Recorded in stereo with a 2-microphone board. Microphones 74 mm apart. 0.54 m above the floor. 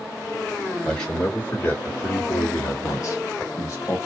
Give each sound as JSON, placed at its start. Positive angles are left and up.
{"t": 0.8, "sound": "a man speaking", "side_deg": 10, "distance_m": 1.7}